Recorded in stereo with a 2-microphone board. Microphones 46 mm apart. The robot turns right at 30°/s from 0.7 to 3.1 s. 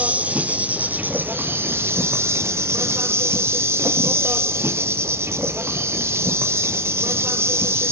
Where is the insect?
145° right, 0.7 m; by 7.9 s 75° right, 0.7 m.